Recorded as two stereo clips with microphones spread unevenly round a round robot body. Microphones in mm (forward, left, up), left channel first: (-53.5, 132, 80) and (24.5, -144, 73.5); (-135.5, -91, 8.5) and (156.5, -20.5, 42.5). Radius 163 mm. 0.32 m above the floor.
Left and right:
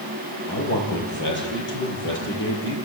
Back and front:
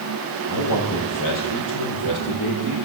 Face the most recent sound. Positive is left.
turn(degrees=155)